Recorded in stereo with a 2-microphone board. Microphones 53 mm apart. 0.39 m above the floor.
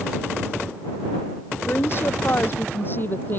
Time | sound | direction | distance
1.7 | a woman speaking | 45° left (ahead or behind) | ?